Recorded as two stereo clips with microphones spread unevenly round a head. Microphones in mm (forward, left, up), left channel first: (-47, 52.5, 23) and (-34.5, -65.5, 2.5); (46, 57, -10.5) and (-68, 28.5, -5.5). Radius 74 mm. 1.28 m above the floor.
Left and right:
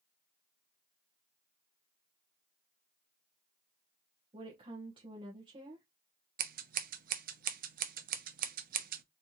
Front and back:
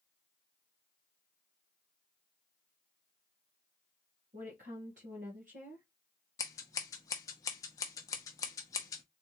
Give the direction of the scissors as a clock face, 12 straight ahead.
2 o'clock.